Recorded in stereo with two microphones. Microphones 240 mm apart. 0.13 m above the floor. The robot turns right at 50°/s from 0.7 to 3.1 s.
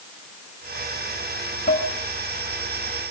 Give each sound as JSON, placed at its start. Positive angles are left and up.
{"t": 1.7, "sound": "dishes clattering", "side_deg": 45, "distance_m": 6.5}